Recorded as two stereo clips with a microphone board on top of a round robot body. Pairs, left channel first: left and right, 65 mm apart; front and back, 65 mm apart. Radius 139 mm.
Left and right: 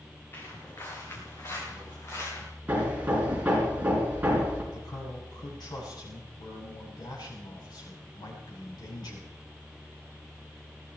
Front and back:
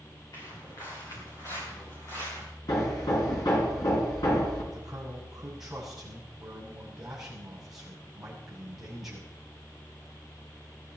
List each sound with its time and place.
0.3 s footsteps: 40° left, 6 m; by 2.5 s 50° left, 7.5 m
2.7 s hammering: 20° right, 5 m
4.7 s a man speaking: 95° left, 7 m